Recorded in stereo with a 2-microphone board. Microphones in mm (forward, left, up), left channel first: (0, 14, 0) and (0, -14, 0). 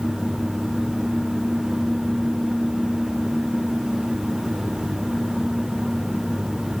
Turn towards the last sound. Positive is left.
No sound to turn to.